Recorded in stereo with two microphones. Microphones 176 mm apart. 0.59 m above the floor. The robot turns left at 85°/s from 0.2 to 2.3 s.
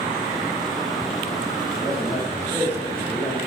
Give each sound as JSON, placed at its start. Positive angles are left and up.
{"t": 1.7, "sound": "a man speaking", "azimuth_deg": -150, "distance_m": 2.0}